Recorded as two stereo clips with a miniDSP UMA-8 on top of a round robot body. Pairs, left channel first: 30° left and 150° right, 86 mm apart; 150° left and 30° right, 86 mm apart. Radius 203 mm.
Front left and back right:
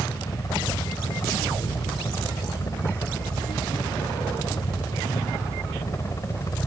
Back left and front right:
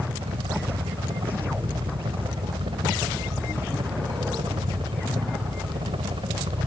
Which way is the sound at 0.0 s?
20° right.